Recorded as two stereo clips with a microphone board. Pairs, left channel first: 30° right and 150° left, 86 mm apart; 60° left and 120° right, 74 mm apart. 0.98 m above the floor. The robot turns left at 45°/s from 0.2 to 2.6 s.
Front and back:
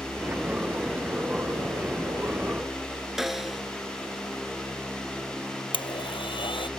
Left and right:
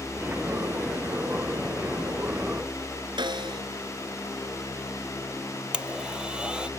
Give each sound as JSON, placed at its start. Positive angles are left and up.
{"t": 3.2, "sound": "a snare drum", "azimuth_deg": -125}
{"t": 5.7, "sound": "a blender", "azimuth_deg": -45}